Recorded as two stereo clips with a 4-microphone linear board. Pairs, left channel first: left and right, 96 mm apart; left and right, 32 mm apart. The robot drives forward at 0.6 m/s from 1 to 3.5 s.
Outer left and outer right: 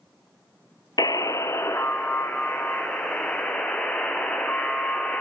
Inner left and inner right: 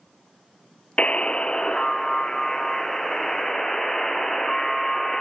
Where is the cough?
No cough in this recording.